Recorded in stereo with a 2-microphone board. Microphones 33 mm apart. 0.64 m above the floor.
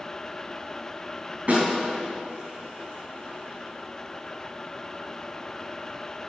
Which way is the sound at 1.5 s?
50° right (ahead or behind).